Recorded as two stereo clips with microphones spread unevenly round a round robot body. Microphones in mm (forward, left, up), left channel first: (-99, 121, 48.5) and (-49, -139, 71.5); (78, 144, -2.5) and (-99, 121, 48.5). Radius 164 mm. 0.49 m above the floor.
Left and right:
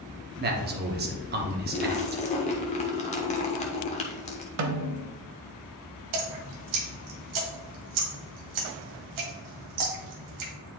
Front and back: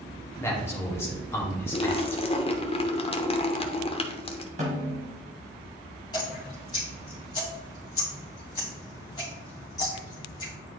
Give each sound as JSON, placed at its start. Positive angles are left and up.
{"t": 0.4, "sound": "a man speaking", "azimuth_deg": -40, "distance_m": 1.0}
{"t": 1.7, "sound": "a splash", "azimuth_deg": 45, "distance_m": 0.9}
{"t": 4.6, "sound": "a snare drum", "azimuth_deg": -105, "distance_m": 0.9}
{"t": 6.1, "sound": "dripping", "azimuth_deg": -70, "distance_m": 1.5}